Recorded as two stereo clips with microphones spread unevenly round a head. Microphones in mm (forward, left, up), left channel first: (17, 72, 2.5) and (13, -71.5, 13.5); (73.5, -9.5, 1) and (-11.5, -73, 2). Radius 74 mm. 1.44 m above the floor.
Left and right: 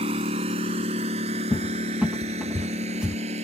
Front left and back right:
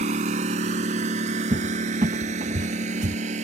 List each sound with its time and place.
0.0 s a lawn mower: 145° right; by 3.4 s 140° right
1.5 s a cupboard door: 175° right